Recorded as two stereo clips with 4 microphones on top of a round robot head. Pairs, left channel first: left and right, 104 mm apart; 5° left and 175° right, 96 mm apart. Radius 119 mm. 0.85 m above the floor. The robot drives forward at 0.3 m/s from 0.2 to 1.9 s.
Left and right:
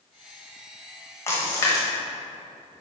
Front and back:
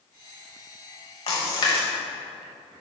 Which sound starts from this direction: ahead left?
A splash, at 1.3 s.